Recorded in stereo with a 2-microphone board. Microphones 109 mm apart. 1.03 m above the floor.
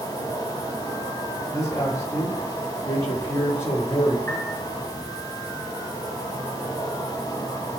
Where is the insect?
25° left (ahead or behind), 4.5 m.